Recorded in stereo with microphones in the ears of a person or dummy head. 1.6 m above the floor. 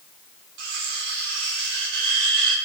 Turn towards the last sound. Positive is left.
turn(degrees=-70)  # may be behind; listen again after turning